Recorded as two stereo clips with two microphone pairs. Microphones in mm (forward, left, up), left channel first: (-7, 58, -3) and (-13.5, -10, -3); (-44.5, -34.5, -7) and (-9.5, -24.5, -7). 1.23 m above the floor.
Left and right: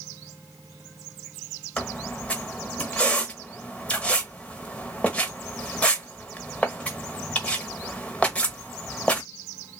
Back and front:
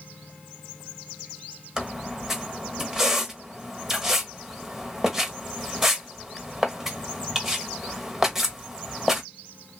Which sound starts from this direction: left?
A squeak, at 1.8 s.